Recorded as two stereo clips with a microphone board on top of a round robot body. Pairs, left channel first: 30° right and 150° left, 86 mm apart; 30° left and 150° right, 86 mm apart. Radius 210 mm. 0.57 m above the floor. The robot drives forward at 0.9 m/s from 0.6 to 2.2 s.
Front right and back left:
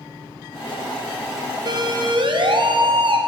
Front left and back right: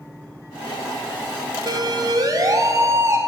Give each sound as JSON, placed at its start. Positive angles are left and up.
{"t": 1.7, "sound": "a siren", "azimuth_deg": 175, "distance_m": 3.0}